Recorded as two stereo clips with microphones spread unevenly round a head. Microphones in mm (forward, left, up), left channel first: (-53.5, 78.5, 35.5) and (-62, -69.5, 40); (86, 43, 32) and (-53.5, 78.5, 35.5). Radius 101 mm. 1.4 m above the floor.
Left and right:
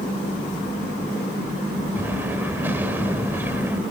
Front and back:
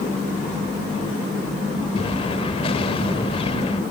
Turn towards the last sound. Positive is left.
turn(degrees=-25)